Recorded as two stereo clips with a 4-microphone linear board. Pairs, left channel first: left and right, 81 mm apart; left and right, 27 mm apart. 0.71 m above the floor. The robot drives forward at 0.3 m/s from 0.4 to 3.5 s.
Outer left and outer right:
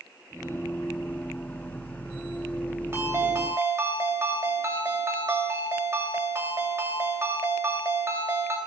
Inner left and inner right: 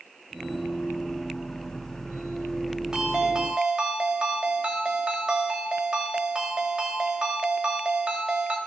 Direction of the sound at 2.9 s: 35° right (ahead or behind).